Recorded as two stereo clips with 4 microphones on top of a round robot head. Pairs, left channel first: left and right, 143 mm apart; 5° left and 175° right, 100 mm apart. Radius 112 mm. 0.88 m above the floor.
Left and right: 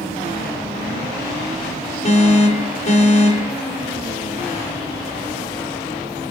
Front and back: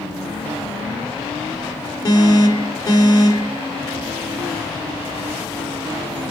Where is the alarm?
55° left, 5 m.